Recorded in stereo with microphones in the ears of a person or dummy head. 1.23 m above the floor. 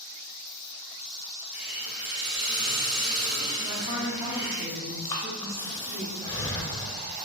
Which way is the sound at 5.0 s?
20° left (ahead or behind).